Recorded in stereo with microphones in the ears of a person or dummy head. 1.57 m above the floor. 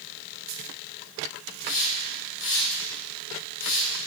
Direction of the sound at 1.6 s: 60° left (ahead or behind).